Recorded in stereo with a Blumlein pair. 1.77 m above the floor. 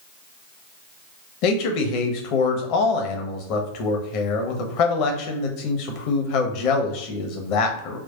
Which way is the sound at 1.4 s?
45° left.